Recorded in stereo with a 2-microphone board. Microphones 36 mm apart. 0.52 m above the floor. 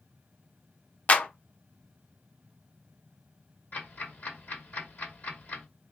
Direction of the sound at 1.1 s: 45° left (ahead or behind).